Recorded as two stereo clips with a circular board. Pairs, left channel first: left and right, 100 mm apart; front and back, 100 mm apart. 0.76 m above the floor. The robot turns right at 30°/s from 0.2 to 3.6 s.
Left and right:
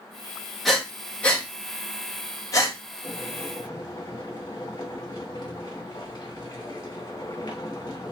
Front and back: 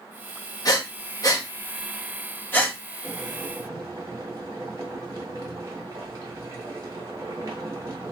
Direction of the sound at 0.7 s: 5° left.